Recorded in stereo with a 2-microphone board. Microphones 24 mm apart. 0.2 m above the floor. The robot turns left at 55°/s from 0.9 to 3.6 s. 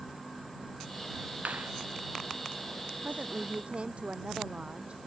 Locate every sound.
1.4 s a clap: 85° right; by 1.7 s 75° right (ahead or behind)
3.0 s a woman speaking: 105° right; by 5.1 s 135° right